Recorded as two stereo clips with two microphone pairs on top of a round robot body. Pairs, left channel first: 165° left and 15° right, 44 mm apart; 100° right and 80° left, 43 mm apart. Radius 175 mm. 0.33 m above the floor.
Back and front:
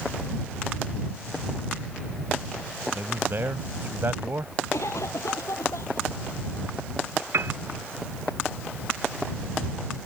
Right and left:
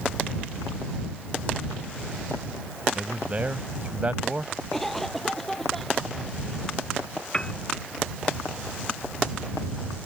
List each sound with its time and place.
3.0 s a man speaking: 25° left
4.7 s a cough: 175° left
7.3 s a piano: 30° right